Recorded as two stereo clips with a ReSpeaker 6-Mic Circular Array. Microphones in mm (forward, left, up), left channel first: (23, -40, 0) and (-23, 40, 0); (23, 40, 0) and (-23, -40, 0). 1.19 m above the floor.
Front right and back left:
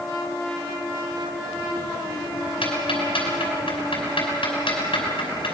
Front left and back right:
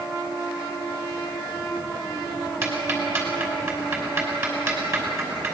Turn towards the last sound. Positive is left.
turn(degrees=-60)